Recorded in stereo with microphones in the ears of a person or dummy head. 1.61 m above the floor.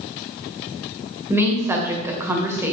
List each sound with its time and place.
1.3 s a woman speaking: 15° right (ahead or behind), 1.3 m